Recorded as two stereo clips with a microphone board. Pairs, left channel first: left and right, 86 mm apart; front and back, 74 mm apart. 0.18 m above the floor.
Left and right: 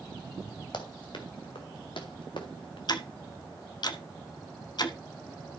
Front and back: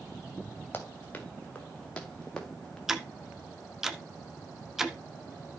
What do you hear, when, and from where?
0.7 s running footsteps: 65° left, 2.5 m; by 2.8 s 85° left, 3 m
2.9 s ticking: 95° left, 1.0 m